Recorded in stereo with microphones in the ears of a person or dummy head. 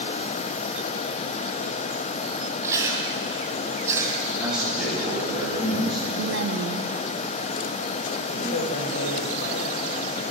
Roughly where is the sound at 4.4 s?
Centre.